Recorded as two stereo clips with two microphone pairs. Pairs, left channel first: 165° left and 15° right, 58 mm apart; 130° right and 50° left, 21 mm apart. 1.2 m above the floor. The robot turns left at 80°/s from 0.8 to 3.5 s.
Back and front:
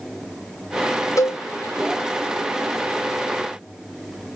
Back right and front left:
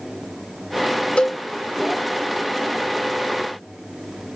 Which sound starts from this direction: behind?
A cowbell, at 1.2 s.